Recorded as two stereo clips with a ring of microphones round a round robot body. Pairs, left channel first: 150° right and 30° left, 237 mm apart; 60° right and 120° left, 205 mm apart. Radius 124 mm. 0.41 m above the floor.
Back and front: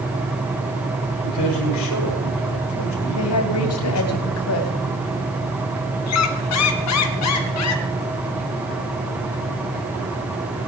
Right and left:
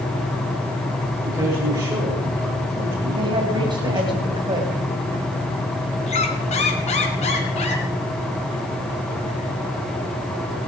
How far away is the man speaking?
About 8.5 m.